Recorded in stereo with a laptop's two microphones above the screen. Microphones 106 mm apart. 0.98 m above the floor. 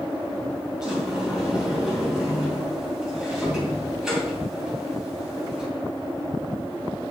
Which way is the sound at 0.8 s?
5° right (ahead or behind).